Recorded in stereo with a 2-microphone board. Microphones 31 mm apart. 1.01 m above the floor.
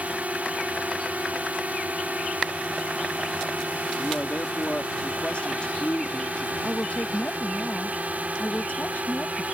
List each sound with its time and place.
0.0 s a drone: 60° right (ahead or behind); by 9.5 s 65° right (ahead or behind)
4.0 s a man speaking: 45° left (ahead or behind)
6.6 s a woman speaking: 60° left (ahead or behind)